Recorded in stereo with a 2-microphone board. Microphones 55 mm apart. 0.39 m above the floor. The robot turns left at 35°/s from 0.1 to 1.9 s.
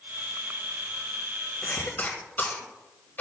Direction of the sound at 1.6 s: 30° left (ahead or behind).